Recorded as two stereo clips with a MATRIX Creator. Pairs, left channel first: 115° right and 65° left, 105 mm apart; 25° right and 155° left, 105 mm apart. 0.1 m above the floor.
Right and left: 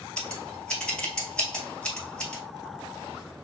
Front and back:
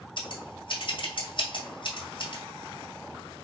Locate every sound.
0.2 s scissors: 35° right, 1.4 m